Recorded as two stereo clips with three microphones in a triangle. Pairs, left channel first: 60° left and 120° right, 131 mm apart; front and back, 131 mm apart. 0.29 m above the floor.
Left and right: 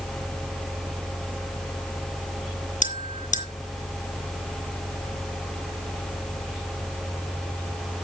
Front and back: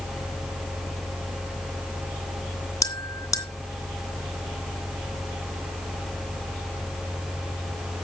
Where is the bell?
60° left, 2.5 m.